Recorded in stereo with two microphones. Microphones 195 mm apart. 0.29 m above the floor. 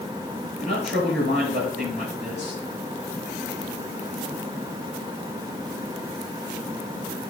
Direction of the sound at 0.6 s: 70° right (ahead or behind).